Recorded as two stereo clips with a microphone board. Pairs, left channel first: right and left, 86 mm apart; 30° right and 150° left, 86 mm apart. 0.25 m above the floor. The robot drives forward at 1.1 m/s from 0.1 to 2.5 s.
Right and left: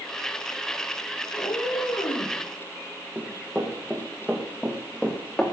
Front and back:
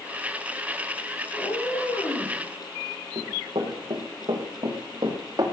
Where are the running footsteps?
160° left, 6.5 m; by 5.5 s 165° right, 4.5 m.